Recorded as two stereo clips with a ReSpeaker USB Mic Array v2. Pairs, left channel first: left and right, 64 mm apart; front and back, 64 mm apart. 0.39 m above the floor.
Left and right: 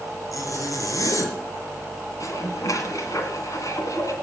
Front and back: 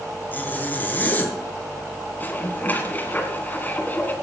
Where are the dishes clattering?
60° left, 2 m.